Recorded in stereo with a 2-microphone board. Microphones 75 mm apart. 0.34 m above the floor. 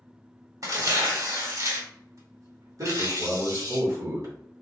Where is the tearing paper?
50° right (ahead or behind), 1.4 m.